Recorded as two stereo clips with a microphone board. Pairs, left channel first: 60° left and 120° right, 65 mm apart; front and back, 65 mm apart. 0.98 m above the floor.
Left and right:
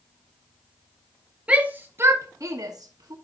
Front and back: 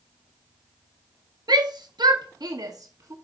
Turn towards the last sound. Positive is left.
turn(degrees=-140)